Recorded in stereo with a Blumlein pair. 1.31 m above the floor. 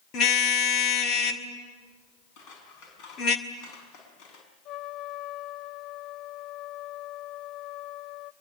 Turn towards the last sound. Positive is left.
turn(degrees=30)